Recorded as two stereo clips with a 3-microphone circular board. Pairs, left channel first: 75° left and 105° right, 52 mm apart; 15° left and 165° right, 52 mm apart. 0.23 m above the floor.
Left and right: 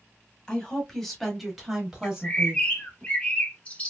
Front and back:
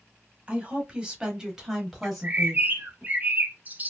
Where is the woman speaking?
140° left, 1.1 m; by 3.0 s 55° right, 1.2 m.